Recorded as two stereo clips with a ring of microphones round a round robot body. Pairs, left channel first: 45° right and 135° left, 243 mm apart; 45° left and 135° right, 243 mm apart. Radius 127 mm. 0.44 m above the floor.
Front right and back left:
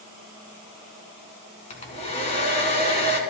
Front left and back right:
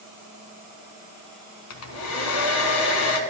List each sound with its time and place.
1.7 s a hair dryer: 20° left, 1.3 m